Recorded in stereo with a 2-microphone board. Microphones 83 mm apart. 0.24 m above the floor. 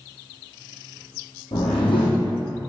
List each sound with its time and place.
1.5 s a whoosh: 80° left, 2 m